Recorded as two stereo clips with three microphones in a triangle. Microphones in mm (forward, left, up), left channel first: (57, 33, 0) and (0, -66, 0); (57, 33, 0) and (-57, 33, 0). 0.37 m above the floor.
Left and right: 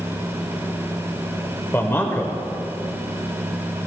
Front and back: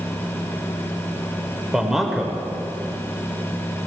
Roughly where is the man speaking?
Left.